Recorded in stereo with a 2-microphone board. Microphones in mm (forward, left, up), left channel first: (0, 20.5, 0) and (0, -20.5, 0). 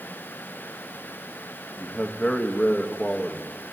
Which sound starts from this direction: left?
A man speaking, at 1.8 s.